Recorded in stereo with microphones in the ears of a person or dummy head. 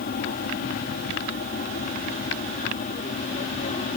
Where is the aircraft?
50° left (ahead or behind); by 4.0 s 35° left (ahead or behind).